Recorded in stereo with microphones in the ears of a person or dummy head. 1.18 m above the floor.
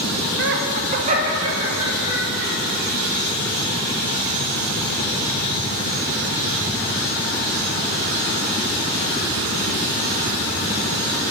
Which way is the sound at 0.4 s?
60° right (ahead or behind).